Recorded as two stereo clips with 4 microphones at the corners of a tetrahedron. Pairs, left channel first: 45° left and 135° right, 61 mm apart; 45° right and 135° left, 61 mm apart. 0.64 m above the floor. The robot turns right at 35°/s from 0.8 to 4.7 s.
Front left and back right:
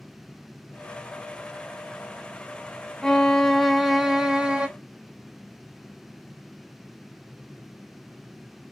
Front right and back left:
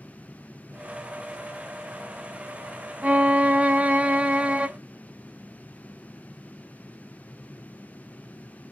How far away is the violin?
About 0.6 m.